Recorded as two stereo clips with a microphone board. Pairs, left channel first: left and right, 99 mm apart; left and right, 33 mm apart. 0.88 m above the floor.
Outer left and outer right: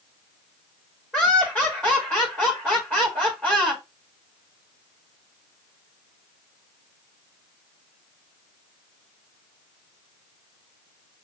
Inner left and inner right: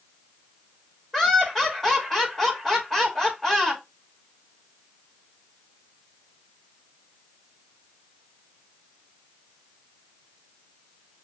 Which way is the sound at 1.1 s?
10° left (ahead or behind).